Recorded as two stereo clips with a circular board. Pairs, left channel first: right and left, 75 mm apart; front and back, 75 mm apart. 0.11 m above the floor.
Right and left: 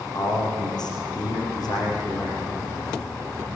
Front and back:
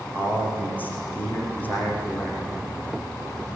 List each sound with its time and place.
0.1 s a man speaking: 65° right, 7 m